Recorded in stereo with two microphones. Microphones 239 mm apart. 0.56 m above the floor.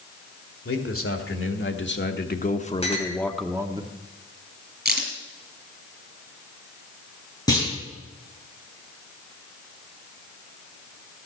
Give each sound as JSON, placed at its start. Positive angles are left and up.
{"t": 0.7, "sound": "a man speaking", "side_deg": 65, "distance_m": 2.0}
{"t": 2.8, "sound": "a clink", "side_deg": 25, "distance_m": 3.0}
{"t": 4.8, "sound": "a crack", "side_deg": -40, "distance_m": 5.0}
{"t": 7.5, "sound": "a clunk", "side_deg": 15, "distance_m": 7.5}